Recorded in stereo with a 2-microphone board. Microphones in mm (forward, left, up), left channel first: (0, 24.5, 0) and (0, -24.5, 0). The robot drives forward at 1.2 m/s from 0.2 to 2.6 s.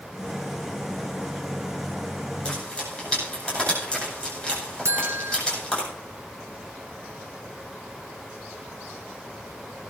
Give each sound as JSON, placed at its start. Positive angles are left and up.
{"t": 2.5, "sound": "frying", "side_deg": 20, "distance_m": 9.5}
{"t": 4.8, "sound": "a buzzer", "side_deg": -75, "distance_m": 1.0}